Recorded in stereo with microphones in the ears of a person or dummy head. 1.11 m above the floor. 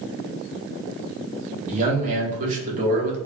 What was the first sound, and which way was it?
A man speaking, 35° right (ahead or behind).